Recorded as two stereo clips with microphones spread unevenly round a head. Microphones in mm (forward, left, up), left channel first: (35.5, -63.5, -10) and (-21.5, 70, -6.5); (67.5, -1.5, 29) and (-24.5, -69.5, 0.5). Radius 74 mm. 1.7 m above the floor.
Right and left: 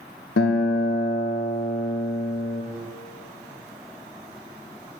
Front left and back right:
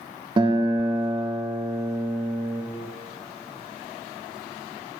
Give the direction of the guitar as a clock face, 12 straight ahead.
3 o'clock.